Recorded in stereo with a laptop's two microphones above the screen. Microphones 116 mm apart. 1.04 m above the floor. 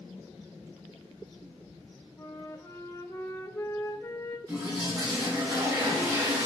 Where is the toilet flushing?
35° right (ahead or behind), 3 m.